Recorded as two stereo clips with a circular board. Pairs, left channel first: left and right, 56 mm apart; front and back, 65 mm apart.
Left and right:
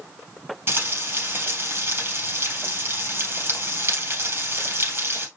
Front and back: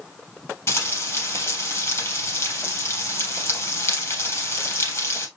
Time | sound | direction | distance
0.7 | frying | 45° right | 4 m